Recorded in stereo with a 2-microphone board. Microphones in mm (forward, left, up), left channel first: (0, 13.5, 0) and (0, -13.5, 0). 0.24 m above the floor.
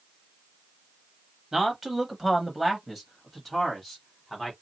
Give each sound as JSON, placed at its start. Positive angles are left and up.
{"t": 1.5, "sound": "a man speaking", "side_deg": -15, "distance_m": 1.3}